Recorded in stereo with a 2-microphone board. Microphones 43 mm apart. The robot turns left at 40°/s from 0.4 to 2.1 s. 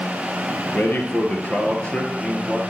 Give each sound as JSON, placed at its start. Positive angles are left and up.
{"t": 0.7, "sound": "a man speaking", "azimuth_deg": 85, "distance_m": 2.0}